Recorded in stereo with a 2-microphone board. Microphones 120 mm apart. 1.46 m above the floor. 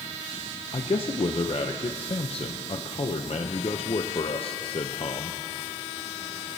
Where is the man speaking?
50° left (ahead or behind), 0.6 m.